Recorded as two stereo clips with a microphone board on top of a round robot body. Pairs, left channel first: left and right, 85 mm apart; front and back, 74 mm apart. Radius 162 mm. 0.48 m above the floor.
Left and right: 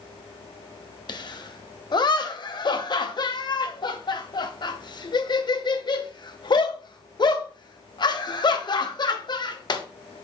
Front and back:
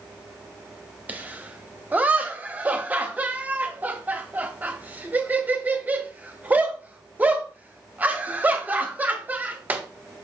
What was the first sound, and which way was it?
Laughter, 115° left.